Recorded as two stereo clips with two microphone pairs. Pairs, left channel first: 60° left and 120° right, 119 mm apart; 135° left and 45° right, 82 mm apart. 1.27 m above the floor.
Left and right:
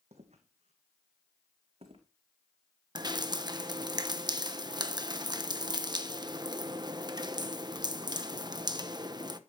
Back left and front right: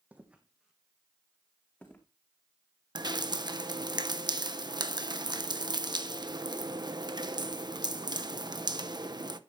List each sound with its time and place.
0.1 s footsteps: 115° right, 3 m; by 2.0 s 155° right, 4.5 m
3.0 s dripping: 70° right, 1.1 m